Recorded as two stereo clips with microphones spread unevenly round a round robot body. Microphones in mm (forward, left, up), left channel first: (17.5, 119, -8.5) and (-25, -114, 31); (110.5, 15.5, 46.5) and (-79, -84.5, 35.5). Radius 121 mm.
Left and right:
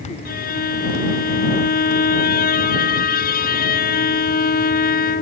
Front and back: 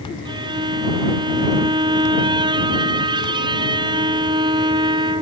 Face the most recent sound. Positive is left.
turn(degrees=135)